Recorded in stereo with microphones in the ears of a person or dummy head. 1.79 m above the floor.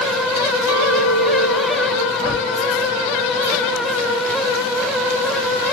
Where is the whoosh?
40° right (ahead or behind), 1.7 m.